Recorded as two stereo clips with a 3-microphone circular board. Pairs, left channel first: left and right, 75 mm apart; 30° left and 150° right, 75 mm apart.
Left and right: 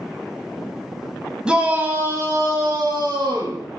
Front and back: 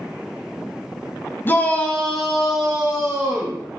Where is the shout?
15° right, 2 m; by 3.6 s 85° right, 3 m.